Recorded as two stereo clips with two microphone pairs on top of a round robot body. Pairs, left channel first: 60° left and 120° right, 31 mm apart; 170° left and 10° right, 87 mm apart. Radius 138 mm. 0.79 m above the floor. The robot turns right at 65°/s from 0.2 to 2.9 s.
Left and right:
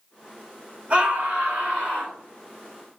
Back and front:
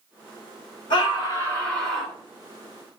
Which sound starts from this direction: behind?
A scream, at 0.9 s.